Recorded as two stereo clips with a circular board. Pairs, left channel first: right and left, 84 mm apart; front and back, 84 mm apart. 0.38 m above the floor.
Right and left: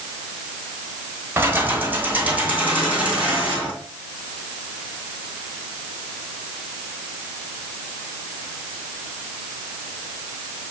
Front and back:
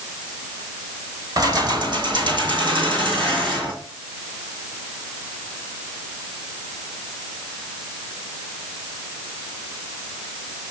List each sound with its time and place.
1.4 s keys jangling: 150° left, 1.2 m; by 3.7 s 165° left, 4 m